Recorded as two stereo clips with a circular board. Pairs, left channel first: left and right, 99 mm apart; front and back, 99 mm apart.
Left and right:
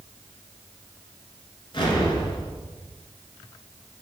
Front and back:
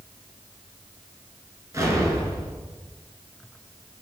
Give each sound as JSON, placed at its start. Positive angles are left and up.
{"t": 1.7, "sound": "an explosion", "azimuth_deg": 125, "distance_m": 1.7}